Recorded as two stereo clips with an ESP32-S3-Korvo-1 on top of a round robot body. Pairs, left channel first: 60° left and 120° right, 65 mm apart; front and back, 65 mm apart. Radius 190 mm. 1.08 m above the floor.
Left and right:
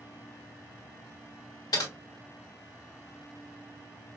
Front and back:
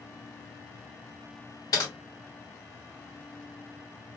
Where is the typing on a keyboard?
35° left, 1.0 m.